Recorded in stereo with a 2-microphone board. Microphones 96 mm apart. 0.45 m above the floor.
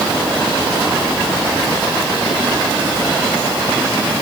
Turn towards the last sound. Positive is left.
No sound to turn to.